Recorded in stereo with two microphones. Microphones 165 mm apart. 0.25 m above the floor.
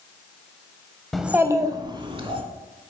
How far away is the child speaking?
About 0.5 m.